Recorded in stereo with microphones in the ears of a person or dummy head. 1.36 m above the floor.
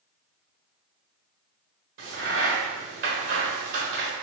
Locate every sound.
2.0 s a crack: 55° right (ahead or behind), 1.3 m